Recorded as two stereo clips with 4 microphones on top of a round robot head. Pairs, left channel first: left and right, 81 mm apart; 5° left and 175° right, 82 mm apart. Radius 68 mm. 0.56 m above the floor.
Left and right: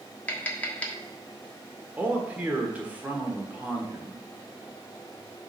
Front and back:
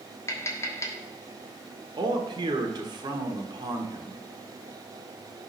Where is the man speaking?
160° right, 1.4 m.